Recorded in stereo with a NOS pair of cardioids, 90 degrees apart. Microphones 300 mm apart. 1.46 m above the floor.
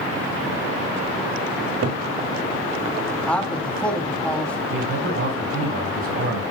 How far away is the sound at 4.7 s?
About 6 m.